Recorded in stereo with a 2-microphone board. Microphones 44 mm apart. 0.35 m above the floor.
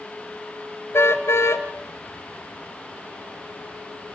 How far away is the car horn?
About 2 m.